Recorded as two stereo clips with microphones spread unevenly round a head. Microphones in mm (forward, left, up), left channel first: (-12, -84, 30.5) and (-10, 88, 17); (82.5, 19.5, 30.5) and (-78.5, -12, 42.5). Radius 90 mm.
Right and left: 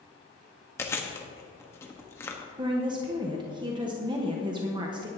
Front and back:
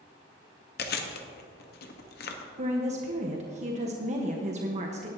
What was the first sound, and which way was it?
Chewing, 15° right.